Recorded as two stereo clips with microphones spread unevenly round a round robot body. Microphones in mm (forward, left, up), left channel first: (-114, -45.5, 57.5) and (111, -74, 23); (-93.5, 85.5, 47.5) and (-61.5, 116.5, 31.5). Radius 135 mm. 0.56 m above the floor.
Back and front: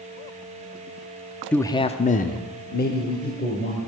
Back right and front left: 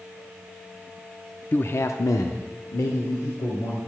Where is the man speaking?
90° right, 0.6 m; by 3.8 s 135° right, 2 m.